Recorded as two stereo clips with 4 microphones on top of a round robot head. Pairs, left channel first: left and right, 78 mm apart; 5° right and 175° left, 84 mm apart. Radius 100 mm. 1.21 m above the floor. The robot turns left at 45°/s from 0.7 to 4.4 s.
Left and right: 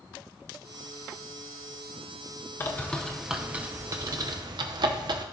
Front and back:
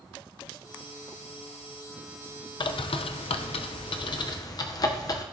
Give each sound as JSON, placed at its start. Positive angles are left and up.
{"t": 2.6, "sound": "a bird", "azimuth_deg": 25, "distance_m": 0.5}